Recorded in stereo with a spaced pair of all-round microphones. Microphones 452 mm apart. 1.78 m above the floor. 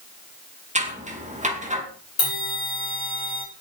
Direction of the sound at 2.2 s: 75° left (ahead or behind).